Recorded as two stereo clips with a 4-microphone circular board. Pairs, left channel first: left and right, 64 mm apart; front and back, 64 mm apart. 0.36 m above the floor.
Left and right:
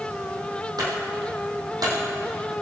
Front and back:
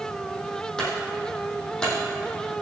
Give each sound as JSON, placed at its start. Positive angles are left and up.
{"t": 0.8, "sound": "a clunk", "azimuth_deg": -80, "distance_m": 4.0}